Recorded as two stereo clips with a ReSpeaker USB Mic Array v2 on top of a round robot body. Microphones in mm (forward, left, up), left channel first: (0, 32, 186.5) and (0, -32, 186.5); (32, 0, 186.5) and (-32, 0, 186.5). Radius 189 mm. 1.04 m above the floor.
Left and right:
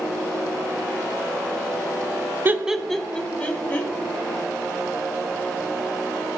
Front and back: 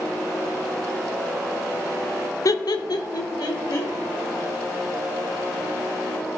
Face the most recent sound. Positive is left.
turn(degrees=25)